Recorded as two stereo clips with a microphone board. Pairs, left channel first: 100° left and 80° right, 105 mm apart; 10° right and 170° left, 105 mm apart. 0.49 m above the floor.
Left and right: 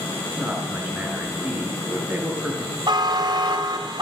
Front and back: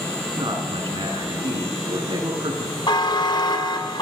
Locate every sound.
0.3 s a man speaking: 155° right, 7 m
2.9 s a buzzer: 45° right, 2.5 m